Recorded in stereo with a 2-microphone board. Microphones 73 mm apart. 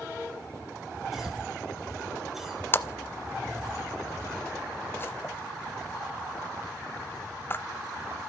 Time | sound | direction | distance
1.1 | a cough | 5° right (ahead or behind) | 3.5 m
2.7 | a splash | 30° left (ahead or behind) | 0.5 m